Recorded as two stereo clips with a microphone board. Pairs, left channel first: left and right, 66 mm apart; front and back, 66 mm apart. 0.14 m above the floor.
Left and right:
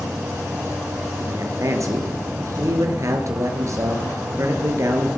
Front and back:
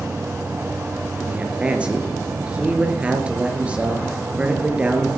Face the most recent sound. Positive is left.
turn(degrees=-110)